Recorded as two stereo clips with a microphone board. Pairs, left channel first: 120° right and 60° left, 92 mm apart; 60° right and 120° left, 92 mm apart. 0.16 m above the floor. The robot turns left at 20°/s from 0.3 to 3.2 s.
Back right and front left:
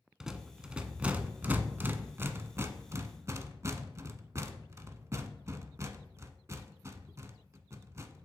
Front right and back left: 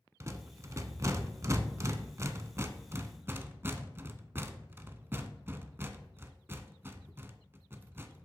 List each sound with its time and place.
0.2 s a rattle: 140° left, 0.6 m; by 8.2 s 80° left, 0.6 m